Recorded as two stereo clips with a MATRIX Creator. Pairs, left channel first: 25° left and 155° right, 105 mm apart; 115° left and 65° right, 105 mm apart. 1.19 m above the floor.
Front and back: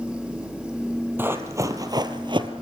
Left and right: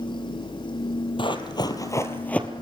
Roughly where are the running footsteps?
Behind left.